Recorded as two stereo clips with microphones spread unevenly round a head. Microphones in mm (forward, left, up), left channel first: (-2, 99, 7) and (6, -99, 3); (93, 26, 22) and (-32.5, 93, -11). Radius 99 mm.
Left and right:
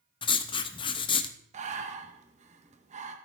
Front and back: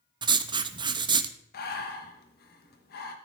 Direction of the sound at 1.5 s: 30° right.